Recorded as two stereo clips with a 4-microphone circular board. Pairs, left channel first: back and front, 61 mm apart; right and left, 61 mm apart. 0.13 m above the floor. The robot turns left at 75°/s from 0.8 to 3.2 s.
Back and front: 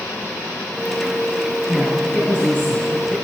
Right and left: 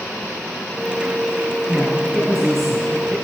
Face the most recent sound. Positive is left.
turn(degrees=135)